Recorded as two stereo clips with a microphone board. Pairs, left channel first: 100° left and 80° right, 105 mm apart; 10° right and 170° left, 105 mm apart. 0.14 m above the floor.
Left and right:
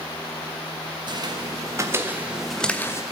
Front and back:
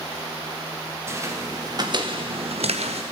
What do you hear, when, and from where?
1.1 s footsteps: 125° right, 3 m; by 3.0 s 160° left, 1.5 m